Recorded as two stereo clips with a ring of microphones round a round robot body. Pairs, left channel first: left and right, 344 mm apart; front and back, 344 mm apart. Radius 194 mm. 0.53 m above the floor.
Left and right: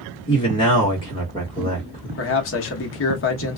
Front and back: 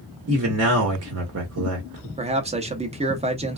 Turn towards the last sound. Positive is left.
turn(degrees=115)